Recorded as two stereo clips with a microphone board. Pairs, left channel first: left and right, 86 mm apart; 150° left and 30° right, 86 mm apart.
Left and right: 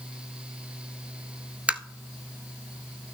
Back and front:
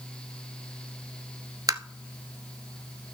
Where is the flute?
No flute in this recording.